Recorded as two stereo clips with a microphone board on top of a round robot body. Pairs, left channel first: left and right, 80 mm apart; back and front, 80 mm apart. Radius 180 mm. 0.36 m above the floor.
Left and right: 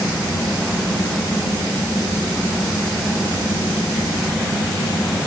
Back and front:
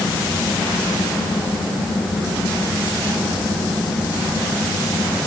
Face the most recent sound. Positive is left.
No sound to turn to.